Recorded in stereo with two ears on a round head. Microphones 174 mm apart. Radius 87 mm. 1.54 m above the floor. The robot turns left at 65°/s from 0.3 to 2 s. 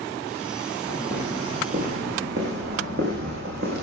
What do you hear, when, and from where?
0.9 s footsteps: 10° left (ahead or behind), 8.5 m; by 3.8 s 55° right (ahead or behind), 6.5 m